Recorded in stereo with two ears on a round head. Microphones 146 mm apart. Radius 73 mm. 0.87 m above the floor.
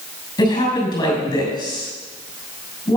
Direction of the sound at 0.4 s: 25° left (ahead or behind).